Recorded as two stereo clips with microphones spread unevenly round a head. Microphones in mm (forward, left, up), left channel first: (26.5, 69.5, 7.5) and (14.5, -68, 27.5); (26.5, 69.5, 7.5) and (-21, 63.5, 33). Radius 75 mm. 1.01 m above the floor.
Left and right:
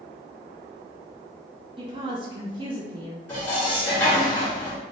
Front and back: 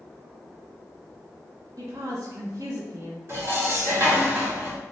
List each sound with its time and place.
1.8 s a woman speaking: 150° right, 0.7 m
3.3 s dishes clattering: 165° left, 1.4 m